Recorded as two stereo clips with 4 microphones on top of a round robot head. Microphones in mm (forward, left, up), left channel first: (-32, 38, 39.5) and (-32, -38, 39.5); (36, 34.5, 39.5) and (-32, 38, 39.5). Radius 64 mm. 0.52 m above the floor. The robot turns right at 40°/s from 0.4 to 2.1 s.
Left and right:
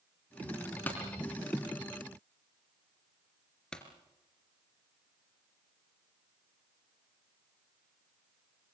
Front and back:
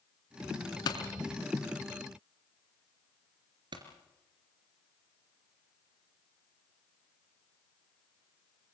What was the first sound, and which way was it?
A pop, 15° left.